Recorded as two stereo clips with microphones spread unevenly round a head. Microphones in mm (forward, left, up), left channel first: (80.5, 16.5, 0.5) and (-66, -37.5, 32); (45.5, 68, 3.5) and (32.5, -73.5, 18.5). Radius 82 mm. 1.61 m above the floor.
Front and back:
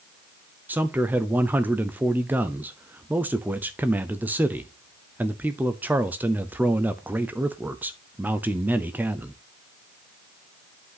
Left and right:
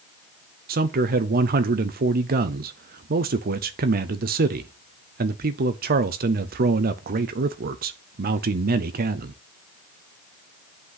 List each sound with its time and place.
0.7 s a man speaking: 75° right, 0.6 m